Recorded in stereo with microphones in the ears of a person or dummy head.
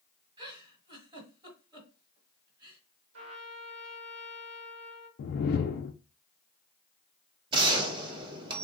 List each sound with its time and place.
0.4 s a giggle: 30° right (ahead or behind), 1.4 m
3.1 s a trumpet: 70° right (ahead or behind), 1.5 m
5.2 s a whoosh: 50° left (ahead or behind), 0.5 m
7.5 s a gunshot: 30° right (ahead or behind), 1.0 m